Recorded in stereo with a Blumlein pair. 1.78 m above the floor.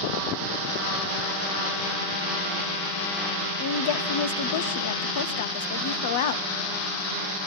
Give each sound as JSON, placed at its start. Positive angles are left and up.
{"t": 3.6, "sound": "a woman speaking", "azimuth_deg": 55, "distance_m": 1.2}